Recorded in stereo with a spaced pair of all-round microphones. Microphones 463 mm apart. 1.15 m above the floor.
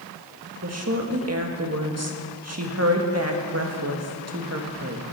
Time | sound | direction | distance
0.6 | a woman speaking | 35° right (ahead or behind) | 1.6 m